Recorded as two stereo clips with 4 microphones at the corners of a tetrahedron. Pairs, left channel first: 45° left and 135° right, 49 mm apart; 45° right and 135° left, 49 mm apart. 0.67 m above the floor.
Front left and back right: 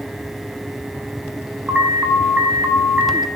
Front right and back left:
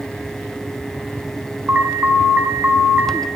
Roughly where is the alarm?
Behind.